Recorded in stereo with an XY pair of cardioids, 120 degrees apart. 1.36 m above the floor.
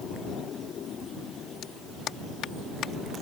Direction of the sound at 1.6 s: 65° left.